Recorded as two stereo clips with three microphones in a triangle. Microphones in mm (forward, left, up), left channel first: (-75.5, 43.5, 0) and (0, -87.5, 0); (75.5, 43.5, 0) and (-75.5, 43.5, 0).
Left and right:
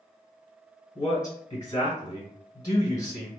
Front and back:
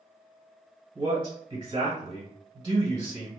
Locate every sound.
0.9 s a man speaking: 155° left, 1.3 m